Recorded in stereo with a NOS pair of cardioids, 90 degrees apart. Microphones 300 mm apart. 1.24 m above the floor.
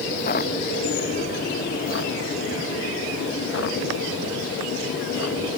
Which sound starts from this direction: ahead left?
Footsteps, at 0.1 s.